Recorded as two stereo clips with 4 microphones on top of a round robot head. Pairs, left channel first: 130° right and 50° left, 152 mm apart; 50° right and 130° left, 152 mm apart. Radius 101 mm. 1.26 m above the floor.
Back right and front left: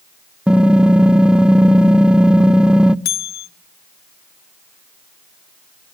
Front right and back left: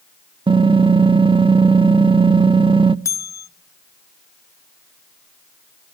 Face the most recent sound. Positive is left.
turn(degrees=-120)